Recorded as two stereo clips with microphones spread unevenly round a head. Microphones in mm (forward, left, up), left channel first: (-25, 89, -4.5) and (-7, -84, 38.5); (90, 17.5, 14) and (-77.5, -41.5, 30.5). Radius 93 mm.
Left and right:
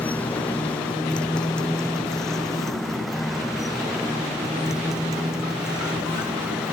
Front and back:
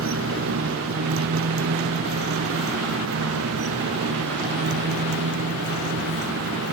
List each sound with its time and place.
0.0 s a motorcycle: straight behind; by 6.7 s 170° right